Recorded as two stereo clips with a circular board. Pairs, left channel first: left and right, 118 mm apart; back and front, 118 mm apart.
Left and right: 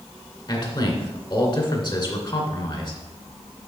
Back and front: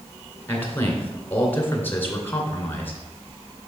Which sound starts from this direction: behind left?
A man speaking, at 0.5 s.